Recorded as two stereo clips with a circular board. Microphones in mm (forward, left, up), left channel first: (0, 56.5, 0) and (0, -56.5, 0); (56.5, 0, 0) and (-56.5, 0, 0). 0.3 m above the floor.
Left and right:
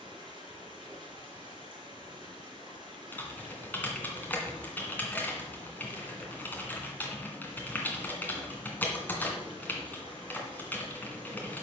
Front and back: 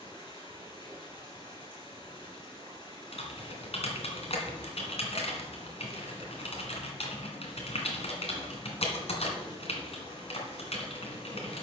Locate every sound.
0.0 s running water: 45° right, 4 m
3.1 s typing on a keyboard: 15° left, 2 m